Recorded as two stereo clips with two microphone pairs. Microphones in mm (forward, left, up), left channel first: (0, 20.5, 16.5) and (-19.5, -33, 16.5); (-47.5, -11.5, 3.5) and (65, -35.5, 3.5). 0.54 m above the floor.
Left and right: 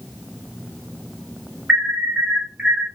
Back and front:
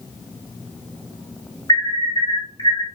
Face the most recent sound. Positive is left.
turn(degrees=-170)